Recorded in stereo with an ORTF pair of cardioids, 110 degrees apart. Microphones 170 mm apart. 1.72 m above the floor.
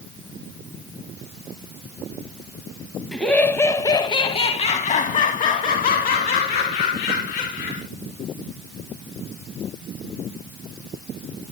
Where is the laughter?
5° left, 1.7 m; by 7.8 s 80° left, 3.5 m.